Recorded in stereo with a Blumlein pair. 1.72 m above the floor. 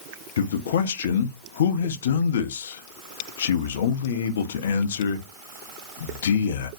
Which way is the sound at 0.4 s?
60° left.